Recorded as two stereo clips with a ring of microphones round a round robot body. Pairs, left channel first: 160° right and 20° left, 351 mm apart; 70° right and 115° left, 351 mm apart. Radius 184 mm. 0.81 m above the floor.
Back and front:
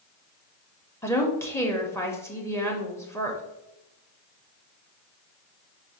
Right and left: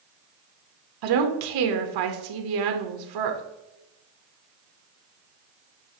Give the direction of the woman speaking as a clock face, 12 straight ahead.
8 o'clock.